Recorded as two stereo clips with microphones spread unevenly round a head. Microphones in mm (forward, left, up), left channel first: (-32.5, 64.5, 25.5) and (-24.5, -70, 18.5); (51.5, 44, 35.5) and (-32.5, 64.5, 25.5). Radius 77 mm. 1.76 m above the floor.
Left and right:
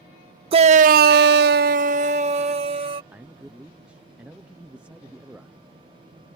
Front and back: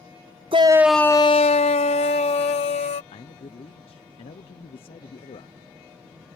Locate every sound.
0.5 s a shout: 135° right; by 3.0 s 30° right
3.1 s a man speaking: 5° right